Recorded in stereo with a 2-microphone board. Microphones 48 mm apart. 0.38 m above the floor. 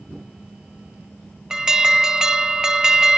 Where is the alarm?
10° right (ahead or behind), 1.0 m.